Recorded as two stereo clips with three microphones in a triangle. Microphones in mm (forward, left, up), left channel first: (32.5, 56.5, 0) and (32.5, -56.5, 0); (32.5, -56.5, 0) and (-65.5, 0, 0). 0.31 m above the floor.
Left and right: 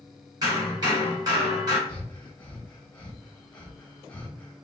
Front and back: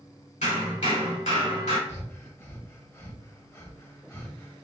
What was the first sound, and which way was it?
Hammering, 35° right.